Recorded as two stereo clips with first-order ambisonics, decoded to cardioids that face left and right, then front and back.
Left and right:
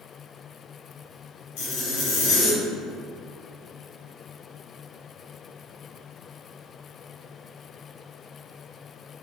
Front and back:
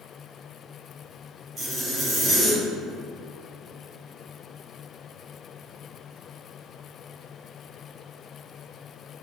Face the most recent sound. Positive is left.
turn(degrees=115)